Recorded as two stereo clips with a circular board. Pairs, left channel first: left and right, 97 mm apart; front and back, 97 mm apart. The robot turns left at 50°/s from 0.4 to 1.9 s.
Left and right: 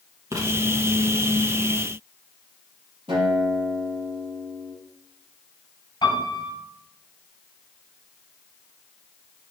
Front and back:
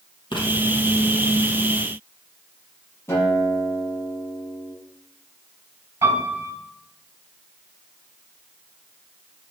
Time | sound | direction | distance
0.3 | writing | 30° right | 3.5 m
3.1 | a guitar | 60° right | 6 m
6.0 | a piano | 130° left | 5 m